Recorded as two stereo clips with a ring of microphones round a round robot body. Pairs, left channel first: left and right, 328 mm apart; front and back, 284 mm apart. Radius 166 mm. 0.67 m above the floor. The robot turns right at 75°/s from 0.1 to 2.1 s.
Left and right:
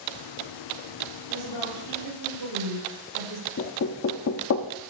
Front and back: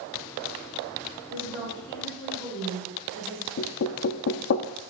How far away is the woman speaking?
About 5.5 m.